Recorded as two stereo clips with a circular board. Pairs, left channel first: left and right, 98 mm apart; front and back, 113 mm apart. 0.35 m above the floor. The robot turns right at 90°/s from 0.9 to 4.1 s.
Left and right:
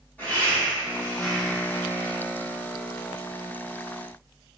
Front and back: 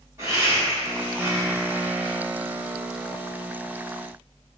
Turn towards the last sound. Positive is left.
turn(degrees=75)